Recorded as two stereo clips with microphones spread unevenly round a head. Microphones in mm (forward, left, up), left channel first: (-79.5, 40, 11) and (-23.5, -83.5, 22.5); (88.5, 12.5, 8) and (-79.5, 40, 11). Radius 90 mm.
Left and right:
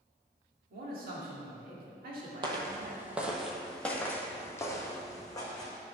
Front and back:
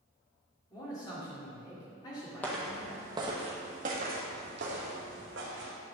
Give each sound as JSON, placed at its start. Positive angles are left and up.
{"t": 0.7, "sound": "a man speaking", "azimuth_deg": -80, "distance_m": 2.0}
{"t": 2.4, "sound": "footsteps", "azimuth_deg": -90, "distance_m": 1.2}